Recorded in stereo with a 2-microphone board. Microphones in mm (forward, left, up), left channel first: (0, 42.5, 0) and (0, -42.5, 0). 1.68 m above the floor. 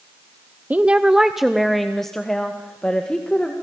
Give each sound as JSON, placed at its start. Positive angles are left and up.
{"t": 0.7, "sound": "a woman speaking", "side_deg": -20, "distance_m": 0.6}